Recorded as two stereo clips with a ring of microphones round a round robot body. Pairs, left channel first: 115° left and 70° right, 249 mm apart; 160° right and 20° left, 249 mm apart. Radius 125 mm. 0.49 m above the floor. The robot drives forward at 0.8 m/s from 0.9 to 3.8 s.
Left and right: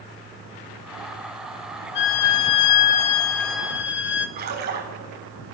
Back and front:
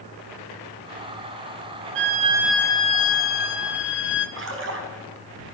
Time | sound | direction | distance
1.9 | a violin | 65° left | 0.6 m
4.4 | a splash | 15° right | 4.5 m